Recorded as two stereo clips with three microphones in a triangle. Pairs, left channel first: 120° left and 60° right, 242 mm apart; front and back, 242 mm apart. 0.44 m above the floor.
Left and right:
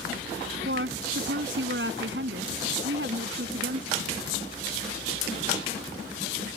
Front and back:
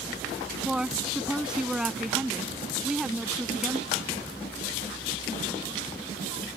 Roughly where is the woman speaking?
Right.